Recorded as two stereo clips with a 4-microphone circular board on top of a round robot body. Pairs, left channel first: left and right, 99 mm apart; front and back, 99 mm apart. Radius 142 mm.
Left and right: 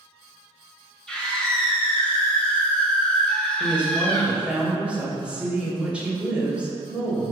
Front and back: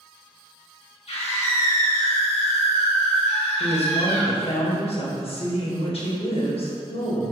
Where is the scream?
10° left, 3 m.